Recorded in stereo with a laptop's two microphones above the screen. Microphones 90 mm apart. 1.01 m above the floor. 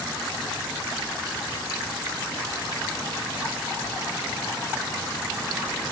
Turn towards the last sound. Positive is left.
No sound to turn to.